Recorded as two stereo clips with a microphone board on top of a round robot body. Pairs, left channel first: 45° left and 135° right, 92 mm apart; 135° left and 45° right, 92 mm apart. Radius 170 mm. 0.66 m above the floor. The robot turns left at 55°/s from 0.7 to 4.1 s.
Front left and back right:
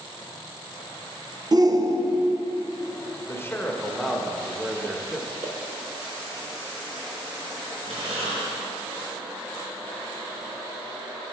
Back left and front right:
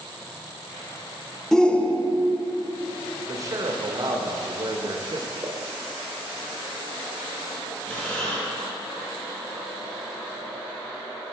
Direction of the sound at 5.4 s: 110° right.